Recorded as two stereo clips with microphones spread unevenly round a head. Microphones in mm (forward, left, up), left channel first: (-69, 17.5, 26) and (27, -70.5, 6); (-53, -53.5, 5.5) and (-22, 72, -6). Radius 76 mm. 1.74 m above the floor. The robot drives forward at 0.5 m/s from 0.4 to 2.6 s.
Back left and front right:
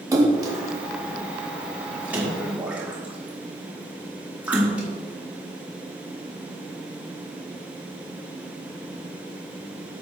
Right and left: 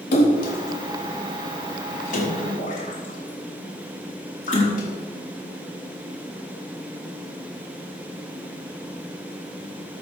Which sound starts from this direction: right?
A splash, at 0.1 s.